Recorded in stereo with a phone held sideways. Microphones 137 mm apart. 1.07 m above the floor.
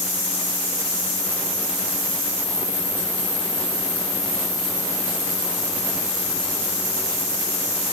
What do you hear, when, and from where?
Only background noise.